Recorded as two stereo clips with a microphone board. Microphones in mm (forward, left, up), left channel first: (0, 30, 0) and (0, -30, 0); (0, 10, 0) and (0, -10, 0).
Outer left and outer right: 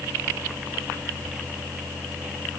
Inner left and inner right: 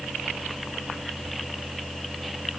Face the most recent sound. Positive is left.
No sound to turn to.